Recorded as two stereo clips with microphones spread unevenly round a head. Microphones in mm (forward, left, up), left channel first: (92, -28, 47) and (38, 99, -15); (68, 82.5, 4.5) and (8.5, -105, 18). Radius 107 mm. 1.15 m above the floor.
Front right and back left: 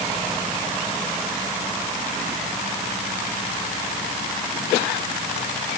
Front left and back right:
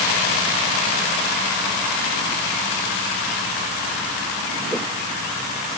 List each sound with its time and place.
Only background noise.